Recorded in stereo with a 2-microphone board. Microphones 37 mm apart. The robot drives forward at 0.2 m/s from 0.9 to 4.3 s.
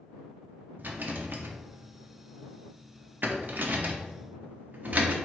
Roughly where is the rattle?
Right.